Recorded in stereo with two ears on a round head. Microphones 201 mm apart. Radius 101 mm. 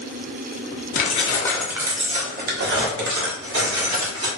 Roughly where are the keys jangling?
Left.